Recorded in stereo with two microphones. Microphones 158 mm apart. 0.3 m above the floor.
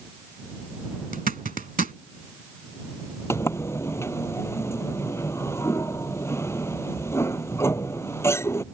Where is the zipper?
60° right (ahead or behind).